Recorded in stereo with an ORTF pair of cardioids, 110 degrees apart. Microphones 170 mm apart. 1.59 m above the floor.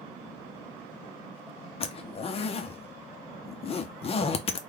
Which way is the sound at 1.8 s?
35° left.